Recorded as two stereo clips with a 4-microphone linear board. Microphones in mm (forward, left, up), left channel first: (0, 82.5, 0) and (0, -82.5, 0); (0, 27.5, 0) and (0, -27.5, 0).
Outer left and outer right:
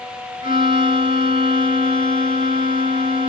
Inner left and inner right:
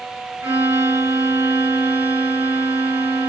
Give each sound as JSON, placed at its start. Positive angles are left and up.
{"t": 0.4, "sound": "a violin", "side_deg": -40, "distance_m": 2.0}